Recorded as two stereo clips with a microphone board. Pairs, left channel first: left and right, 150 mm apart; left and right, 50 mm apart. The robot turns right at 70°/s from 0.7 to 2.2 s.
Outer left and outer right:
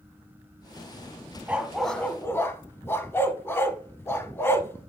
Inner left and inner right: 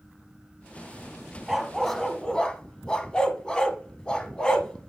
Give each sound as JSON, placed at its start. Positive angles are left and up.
{"t": 1.5, "sound": "a dog barking", "side_deg": -10, "distance_m": 0.6}